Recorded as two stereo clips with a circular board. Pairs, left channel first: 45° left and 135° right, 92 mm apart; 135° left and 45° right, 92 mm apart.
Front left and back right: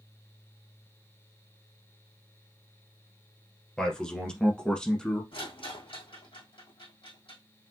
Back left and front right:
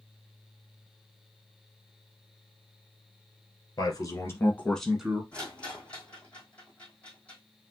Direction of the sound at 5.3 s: 60° left.